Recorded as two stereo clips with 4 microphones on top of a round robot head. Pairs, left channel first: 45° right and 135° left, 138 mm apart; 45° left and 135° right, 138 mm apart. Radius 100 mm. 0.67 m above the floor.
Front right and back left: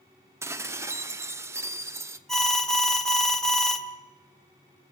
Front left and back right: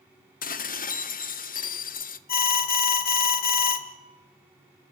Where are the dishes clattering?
60° left, 0.9 m.